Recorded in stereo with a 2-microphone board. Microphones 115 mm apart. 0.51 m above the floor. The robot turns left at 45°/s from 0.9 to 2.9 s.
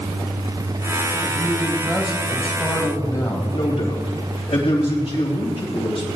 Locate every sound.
1.4 s a man speaking: 140° right, 3 m; by 3.4 s 150° left, 3 m
3.5 s a man speaking: 55° left (ahead or behind), 3 m